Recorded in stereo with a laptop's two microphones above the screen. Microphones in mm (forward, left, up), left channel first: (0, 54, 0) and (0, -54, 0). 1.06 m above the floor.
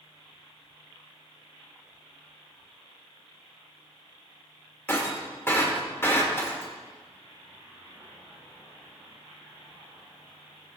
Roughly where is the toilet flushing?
No toilet flushing in this recording.